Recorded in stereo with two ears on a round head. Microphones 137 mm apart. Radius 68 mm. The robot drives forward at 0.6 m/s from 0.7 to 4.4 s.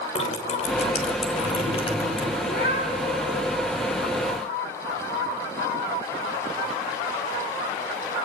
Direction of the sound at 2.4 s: 60° left (ahead or behind).